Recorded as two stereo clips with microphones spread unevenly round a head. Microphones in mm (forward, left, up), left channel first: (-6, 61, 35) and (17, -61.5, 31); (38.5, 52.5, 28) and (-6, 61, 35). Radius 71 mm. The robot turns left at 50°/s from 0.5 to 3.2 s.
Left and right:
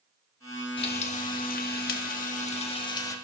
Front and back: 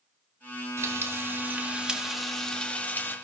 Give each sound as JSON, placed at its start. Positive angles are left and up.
{"t": 0.8, "sound": "frying", "azimuth_deg": 155, "distance_m": 1.4}